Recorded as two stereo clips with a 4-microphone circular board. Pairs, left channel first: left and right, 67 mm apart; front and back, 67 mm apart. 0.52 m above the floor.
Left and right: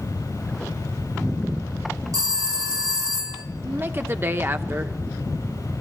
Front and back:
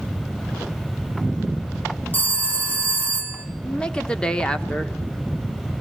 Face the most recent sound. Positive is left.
turn(degrees=-70)